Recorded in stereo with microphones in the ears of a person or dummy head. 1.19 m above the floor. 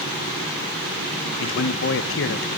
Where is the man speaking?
65° left (ahead or behind), 1.0 m.